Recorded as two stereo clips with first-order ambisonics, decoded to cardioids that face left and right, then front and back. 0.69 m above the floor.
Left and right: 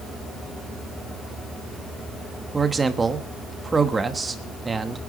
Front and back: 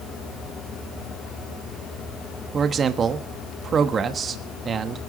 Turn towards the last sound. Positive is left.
turn(degrees=-150)